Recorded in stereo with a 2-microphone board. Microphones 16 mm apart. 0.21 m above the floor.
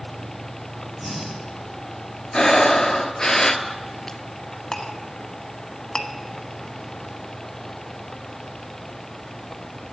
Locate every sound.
1.0 s breathing: 10° right (ahead or behind), 6 m
2.3 s breathing: 45° left (ahead or behind), 1.0 m
4.7 s a clink: 40° left (ahead or behind), 1.0 m